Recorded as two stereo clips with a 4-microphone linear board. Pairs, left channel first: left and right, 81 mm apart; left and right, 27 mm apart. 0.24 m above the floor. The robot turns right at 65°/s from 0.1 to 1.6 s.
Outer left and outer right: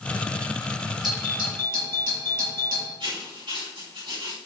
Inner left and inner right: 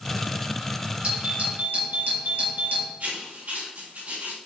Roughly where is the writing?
Right.